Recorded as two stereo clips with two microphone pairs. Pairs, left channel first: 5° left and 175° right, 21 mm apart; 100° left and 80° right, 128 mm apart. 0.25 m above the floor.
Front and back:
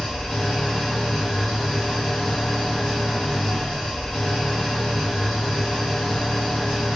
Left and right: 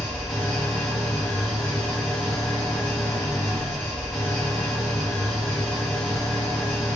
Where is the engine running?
20° left, 1.3 m.